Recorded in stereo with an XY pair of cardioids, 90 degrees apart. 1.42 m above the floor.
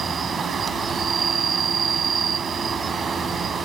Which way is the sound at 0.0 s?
50° right.